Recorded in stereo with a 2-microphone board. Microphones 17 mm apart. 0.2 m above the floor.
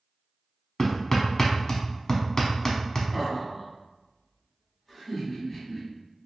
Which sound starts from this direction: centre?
Laughter, at 3.1 s.